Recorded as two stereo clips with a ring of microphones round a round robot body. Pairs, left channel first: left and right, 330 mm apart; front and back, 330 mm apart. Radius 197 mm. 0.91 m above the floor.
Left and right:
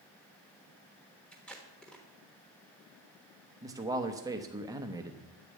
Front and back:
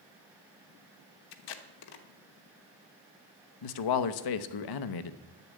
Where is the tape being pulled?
Straight ahead, 0.9 m.